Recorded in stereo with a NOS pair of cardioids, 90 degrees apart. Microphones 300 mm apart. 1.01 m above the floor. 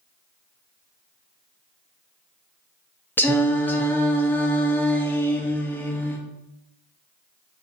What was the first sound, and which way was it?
Singing, 5° left.